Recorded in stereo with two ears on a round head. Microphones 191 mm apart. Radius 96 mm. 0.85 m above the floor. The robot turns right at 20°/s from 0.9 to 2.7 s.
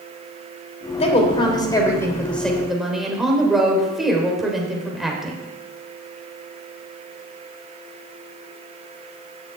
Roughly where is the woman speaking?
Behind left.